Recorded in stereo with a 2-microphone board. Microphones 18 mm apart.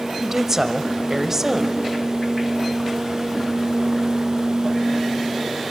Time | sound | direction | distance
0.2 | a woman speaking | 30° right (ahead or behind) | 1.2 m